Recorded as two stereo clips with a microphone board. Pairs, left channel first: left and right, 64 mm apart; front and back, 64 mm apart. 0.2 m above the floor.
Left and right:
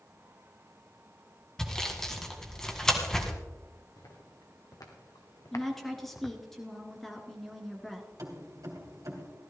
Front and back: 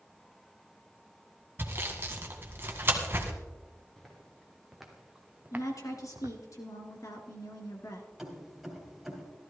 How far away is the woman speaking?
About 2.5 m.